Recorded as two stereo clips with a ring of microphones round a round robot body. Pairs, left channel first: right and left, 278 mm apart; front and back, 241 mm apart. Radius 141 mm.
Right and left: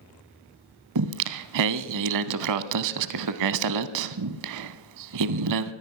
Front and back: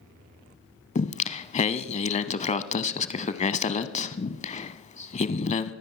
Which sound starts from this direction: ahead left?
Singing, at 0.9 s.